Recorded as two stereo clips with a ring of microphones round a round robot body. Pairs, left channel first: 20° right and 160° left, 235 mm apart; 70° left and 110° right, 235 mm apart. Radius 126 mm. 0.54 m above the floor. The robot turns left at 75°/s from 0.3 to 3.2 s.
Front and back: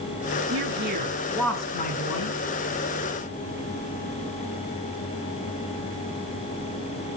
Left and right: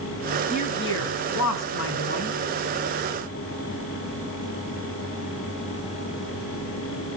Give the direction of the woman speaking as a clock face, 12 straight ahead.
8 o'clock.